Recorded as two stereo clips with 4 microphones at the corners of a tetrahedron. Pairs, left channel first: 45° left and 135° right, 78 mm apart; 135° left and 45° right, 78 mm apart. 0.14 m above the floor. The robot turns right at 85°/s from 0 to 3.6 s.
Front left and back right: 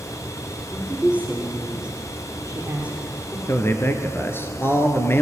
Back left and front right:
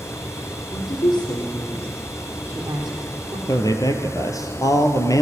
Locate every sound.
0.7 s a woman speaking: 115° left, 3.5 m; by 3.4 s 20° right, 3.5 m
3.5 s a man speaking: 90° left, 2 m; by 5.2 s 100° left, 2 m